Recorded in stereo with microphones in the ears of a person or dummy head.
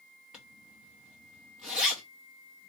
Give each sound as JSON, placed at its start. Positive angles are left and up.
{"t": 0.3, "sound": "a zipper", "side_deg": 0, "distance_m": 0.9}